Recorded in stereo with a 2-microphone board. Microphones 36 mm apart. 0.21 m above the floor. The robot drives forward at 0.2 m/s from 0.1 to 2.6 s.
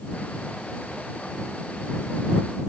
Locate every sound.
Only background noise.